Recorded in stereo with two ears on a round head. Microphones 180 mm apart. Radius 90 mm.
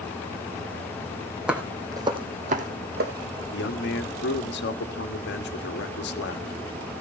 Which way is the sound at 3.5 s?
60° left (ahead or behind).